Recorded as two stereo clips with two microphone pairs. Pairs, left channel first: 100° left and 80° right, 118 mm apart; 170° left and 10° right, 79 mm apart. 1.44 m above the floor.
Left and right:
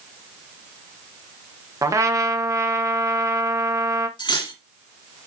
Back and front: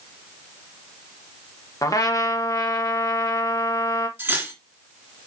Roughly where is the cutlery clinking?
Ahead left.